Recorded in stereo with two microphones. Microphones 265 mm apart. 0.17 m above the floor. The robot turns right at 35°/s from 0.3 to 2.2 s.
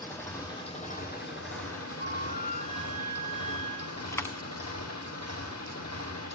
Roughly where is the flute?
Left.